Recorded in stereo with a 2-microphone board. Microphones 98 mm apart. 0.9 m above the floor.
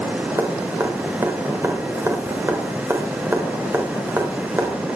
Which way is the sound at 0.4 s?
25° right (ahead or behind).